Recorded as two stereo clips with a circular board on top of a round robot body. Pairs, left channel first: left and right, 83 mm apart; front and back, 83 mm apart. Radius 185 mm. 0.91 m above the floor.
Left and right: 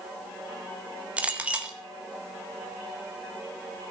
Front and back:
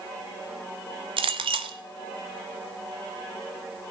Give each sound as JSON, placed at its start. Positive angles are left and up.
{"t": 1.2, "sound": "a clink", "azimuth_deg": -165, "distance_m": 0.7}